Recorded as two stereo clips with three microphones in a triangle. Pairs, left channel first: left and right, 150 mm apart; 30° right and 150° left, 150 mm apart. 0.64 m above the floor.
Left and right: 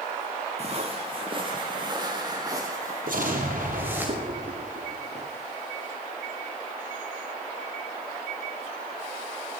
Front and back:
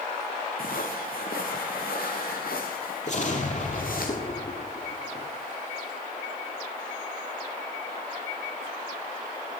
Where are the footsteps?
45° right, 3.5 m; by 4.1 s 15° right, 5.5 m.